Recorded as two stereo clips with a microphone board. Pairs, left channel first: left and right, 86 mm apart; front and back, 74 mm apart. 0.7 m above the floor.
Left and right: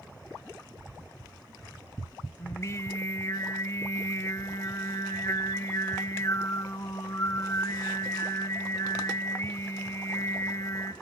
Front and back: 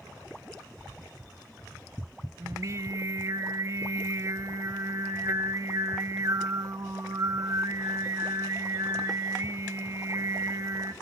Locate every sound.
2.4 s singing: 140° left, 0.9 m